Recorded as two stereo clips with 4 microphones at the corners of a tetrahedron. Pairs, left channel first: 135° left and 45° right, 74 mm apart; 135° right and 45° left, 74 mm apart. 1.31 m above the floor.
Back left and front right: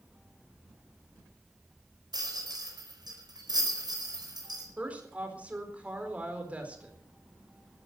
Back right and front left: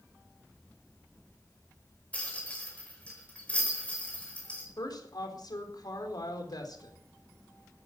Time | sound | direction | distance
2.1 | a rattle | 65° right | 5 m
4.8 | a woman speaking | 115° right | 4 m